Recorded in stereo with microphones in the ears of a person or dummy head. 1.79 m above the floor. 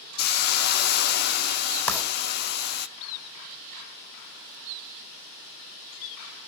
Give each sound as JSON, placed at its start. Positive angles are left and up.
{"t": 0.2, "sound": "a hiss", "side_deg": 50, "distance_m": 0.8}
{"t": 1.9, "sound": "writing", "side_deg": 15, "distance_m": 3.5}